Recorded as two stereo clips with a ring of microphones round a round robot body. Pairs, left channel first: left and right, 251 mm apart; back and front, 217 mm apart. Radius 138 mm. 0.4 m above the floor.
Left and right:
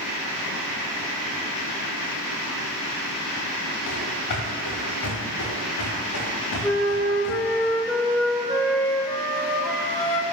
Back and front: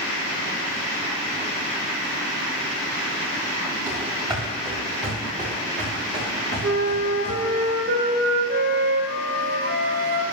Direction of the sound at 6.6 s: 5° left.